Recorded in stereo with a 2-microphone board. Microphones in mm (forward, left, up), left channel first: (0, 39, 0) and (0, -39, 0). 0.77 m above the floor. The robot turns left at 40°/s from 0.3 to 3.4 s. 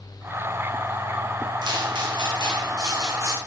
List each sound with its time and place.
1.6 s footsteps: 65° right (ahead or behind), 2.5 m; by 3.4 s 35° right (ahead or behind), 3.5 m